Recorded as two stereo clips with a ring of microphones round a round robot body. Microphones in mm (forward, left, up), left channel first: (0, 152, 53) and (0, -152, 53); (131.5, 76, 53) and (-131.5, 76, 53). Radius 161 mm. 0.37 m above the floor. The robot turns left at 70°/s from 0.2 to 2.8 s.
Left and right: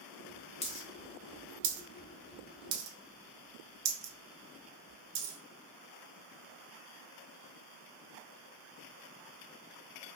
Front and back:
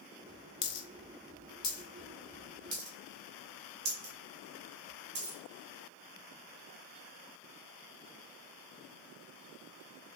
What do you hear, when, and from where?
0.6 s a dropped coin: 20° left, 0.7 m; by 5.4 s 135° right, 0.7 m